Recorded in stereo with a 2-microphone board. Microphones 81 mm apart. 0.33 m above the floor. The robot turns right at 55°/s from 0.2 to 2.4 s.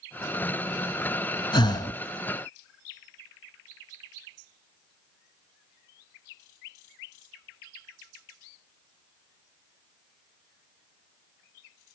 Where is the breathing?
75° left (ahead or behind), 0.8 m; by 2.0 s 55° left (ahead or behind), 0.8 m.